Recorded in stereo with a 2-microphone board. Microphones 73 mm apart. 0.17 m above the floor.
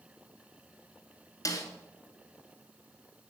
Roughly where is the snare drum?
Left.